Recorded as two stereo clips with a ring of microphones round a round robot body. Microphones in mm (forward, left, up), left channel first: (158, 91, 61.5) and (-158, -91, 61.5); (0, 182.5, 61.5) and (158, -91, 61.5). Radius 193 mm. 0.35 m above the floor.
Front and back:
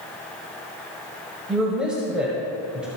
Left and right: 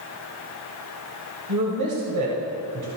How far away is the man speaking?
About 1.8 m.